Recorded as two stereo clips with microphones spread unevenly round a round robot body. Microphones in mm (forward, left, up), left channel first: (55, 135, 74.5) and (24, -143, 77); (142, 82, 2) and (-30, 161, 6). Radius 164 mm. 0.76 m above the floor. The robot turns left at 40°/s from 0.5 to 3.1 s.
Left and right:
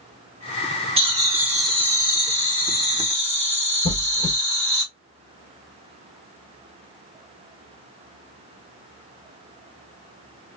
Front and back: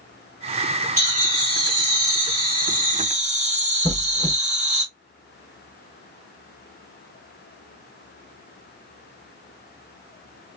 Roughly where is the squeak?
Ahead left.